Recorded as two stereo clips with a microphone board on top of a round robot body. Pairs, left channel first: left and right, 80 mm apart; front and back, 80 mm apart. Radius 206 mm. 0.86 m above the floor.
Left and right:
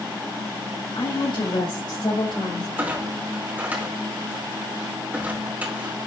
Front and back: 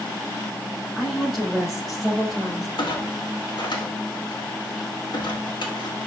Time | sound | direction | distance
0.9 | a woman speaking | 90° left | 4.5 m
2.8 | a clunk | 25° right | 3 m